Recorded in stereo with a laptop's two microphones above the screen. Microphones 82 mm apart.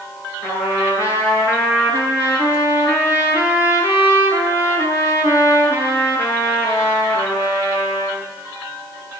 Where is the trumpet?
35° left (ahead or behind), 9.5 m.